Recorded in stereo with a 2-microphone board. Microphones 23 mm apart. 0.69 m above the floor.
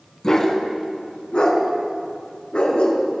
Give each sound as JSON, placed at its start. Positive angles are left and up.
{"t": 0.2, "sound": "a dog barking", "side_deg": 30, "distance_m": 1.6}